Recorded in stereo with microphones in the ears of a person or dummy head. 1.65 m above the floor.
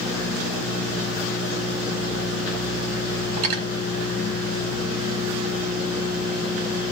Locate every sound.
3.4 s cutlery clinking: 45° right (ahead or behind), 1.4 m